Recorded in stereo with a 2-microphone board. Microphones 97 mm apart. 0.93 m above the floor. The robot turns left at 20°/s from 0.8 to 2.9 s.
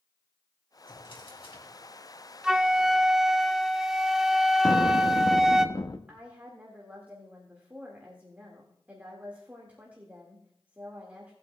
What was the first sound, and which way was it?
A drawer, 55° left (ahead or behind).